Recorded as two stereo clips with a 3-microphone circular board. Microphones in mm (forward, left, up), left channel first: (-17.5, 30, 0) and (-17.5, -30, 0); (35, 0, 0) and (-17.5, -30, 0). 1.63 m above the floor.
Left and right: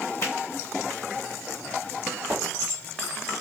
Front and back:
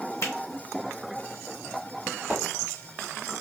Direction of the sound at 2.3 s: 75° right.